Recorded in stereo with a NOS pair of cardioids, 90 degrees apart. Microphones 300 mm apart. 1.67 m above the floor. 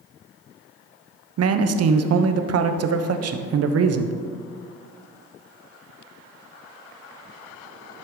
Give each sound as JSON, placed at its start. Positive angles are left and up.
{"t": 1.4, "sound": "a man speaking", "azimuth_deg": -55, "distance_m": 1.0}